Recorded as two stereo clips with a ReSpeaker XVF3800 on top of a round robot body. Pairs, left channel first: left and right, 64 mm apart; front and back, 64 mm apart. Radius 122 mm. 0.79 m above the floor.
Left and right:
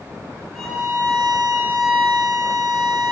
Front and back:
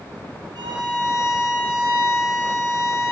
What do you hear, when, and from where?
0.6 s a violin: straight behind, 5.5 m